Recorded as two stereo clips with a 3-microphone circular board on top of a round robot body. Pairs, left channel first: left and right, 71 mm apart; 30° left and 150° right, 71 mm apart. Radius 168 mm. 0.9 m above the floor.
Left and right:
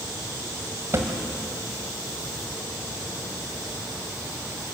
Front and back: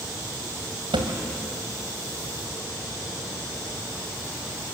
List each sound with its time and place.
0.9 s a thud: 145° right, 1.9 m